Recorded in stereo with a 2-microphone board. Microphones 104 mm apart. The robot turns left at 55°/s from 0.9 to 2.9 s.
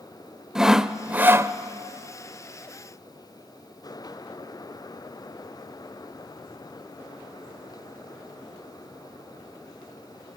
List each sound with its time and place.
0.6 s sawing: 10° right, 0.5 m; by 1.5 s 40° right, 0.5 m